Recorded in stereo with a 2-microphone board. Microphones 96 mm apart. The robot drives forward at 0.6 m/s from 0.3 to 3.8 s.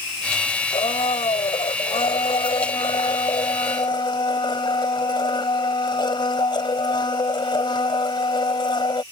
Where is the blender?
85° left; by 9.0 s 55° left (ahead or behind).